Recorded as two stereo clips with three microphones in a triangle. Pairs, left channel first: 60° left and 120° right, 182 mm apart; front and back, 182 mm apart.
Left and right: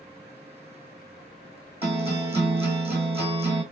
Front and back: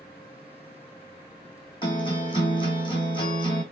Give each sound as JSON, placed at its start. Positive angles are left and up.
{"t": 1.8, "sound": "a guitar", "azimuth_deg": -60, "distance_m": 2.0}